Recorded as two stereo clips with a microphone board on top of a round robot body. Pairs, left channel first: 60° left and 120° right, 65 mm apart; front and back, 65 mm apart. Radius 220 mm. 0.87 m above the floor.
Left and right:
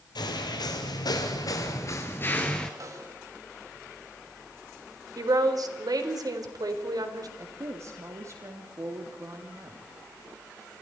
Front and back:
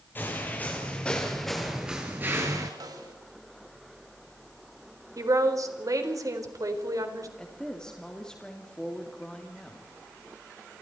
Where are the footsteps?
65° left, 1.7 m; by 2.7 s 140° left, 1.0 m.